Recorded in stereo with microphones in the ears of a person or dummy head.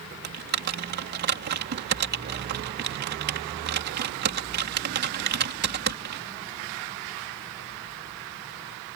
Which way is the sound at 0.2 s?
50° right (ahead or behind).